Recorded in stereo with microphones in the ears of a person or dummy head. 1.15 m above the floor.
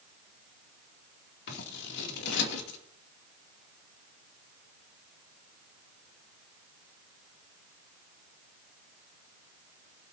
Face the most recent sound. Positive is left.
turn(degrees=65)  # may be behind; listen again after turning